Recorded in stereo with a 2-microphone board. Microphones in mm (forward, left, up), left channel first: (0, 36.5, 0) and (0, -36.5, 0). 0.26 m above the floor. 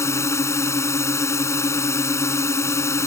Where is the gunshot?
No gunshot in this recording.